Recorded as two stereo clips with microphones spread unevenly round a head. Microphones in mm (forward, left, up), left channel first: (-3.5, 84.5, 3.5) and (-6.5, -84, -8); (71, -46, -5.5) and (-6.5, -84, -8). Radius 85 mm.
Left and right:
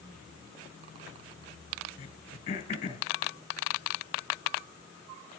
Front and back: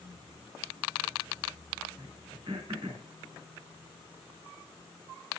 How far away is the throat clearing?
About 2.5 m.